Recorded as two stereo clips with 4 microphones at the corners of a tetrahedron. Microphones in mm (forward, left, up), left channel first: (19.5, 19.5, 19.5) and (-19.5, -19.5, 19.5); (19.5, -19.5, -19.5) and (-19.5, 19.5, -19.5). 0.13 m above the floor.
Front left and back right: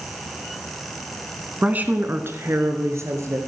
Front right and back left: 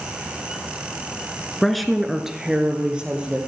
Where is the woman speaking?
125° right, 1.2 m; by 3.4 s 155° right, 2.5 m.